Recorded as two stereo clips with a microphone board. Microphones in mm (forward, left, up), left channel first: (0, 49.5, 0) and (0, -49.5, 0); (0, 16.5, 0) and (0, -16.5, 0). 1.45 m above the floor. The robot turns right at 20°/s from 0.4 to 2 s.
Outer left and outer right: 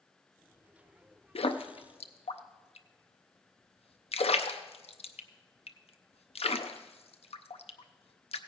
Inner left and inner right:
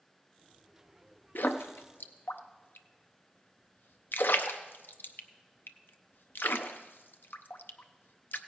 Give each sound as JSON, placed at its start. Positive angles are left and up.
{"t": 1.4, "sound": "a splash", "side_deg": 75, "distance_m": 0.5}